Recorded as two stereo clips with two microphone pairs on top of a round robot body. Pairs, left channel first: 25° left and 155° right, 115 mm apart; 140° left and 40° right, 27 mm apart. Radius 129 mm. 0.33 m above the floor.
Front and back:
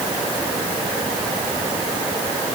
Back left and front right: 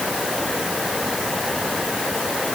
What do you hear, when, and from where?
Only background noise.